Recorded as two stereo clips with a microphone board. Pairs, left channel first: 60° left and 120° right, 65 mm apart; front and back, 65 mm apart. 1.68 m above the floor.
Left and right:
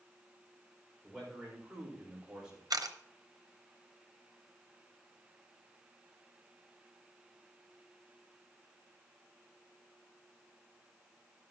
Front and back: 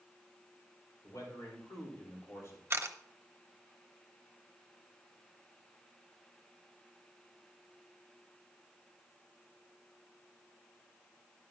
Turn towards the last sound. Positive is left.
turn(degrees=-130)